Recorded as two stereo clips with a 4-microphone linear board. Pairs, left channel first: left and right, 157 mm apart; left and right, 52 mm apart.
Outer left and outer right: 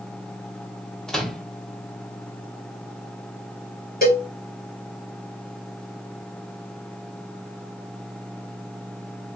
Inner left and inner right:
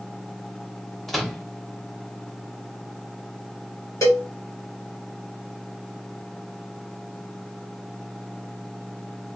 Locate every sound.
1.1 s a microwave: 5° left (ahead or behind), 0.8 m
4.0 s a cowbell: 65° left (ahead or behind), 1.4 m